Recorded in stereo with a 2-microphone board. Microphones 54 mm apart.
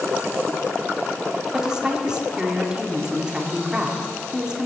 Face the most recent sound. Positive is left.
turn(degrees=-15)  # may be behind; listen again after turning